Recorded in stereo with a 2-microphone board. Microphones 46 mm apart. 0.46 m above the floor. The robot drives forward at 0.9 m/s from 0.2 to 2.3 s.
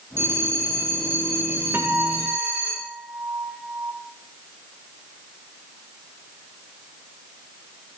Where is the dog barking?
No dog barking in this recording.